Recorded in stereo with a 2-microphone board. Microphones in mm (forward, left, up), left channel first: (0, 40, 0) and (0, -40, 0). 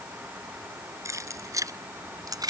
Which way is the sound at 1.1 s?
35° right (ahead or behind).